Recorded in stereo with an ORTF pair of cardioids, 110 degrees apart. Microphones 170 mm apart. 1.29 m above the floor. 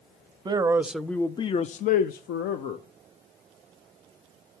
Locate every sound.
0.5 s a man speaking: 25° right, 0.6 m; by 2.8 s 80° left, 0.9 m